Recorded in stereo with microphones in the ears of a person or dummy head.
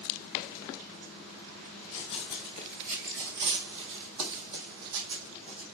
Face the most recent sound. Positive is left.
turn(degrees=-70)  # may be behind; listen again after turning